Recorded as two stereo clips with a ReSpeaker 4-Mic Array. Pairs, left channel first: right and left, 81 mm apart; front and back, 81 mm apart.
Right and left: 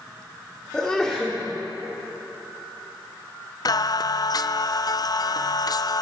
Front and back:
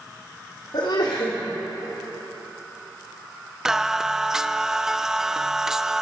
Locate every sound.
0.7 s a sneeze: 10° right, 3 m
3.6 s singing: 100° right, 0.5 m